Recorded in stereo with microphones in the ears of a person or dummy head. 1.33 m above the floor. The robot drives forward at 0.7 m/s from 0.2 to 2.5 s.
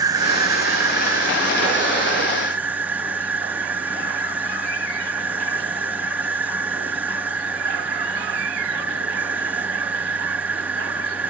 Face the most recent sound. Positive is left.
turn(degrees=-10)  # may be behind; listen again after turning